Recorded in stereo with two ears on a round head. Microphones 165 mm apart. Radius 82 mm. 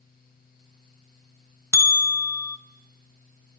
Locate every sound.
1.7 s a bell: 15° left (ahead or behind), 0.8 m